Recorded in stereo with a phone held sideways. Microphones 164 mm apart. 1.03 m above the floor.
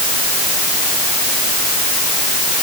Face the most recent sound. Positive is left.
No sound to turn to.